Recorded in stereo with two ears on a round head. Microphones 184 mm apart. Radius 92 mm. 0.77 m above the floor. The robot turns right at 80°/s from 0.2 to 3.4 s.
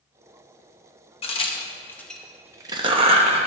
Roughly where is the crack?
Left.